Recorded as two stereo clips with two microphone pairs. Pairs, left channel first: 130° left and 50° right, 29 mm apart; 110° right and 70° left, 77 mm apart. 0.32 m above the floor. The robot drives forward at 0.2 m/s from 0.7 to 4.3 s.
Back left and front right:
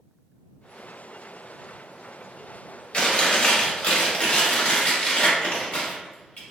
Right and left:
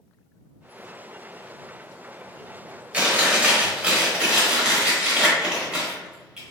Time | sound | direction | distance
2.9 | chewing | 130° left | 1.0 m